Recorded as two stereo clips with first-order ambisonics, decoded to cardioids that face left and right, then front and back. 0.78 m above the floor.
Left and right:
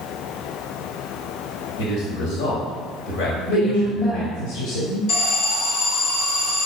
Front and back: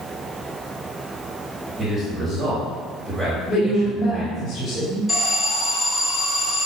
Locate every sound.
1.8 s a man speaking: 100° left, 3.5 m
3.5 s a woman speaking: 65° left, 3.5 m
5.1 s an alarm: 85° left, 2.5 m